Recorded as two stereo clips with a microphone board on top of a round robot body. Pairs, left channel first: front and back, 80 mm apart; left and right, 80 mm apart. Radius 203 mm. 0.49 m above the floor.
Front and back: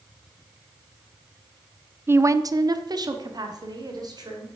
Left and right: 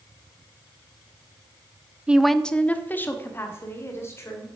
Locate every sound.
2.1 s a woman speaking: 155° right, 0.7 m; by 4.6 s 145° left, 2.5 m